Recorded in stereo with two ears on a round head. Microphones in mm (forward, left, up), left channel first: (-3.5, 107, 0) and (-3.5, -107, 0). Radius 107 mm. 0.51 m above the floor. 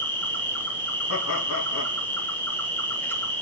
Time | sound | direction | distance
0.0 | an insect | 10° left (ahead or behind) | 2 m
1.1 | laughter | 60° left (ahead or behind) | 4 m